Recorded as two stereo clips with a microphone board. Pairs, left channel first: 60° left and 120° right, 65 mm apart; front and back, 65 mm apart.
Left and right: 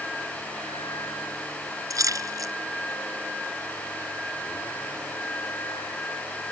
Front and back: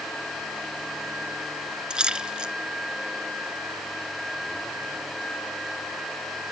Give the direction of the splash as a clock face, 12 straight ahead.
3 o'clock.